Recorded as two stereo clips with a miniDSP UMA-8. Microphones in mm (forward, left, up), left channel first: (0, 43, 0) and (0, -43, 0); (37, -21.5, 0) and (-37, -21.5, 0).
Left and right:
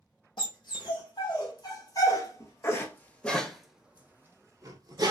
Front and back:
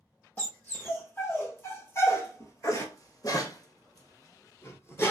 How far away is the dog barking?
About 1.8 m.